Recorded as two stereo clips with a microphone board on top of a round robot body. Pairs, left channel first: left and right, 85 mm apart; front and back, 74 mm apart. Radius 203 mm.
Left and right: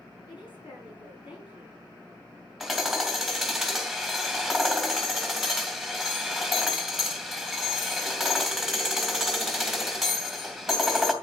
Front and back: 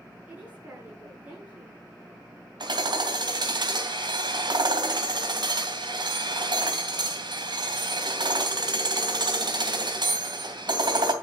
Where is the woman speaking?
110° left, 7 m.